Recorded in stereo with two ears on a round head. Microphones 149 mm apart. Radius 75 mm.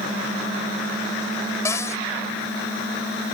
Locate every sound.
1.6 s a cupboard door: 15° left (ahead or behind)